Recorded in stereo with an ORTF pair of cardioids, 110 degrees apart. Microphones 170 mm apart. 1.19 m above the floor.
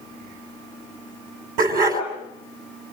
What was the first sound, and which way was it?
A dog barking, 70° right.